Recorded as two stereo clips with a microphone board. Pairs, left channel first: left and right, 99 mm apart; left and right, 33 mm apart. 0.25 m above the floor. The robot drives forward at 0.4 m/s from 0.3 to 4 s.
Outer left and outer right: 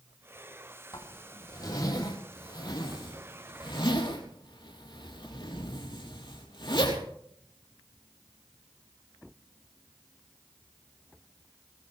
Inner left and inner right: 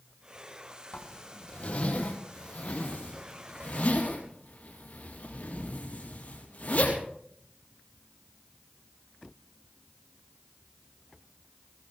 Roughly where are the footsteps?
I don't hear footsteps.